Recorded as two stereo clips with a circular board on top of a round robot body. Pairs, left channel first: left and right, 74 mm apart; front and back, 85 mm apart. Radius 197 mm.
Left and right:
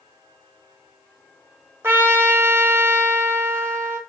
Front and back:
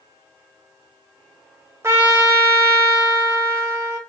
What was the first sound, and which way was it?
A trumpet, 135° right.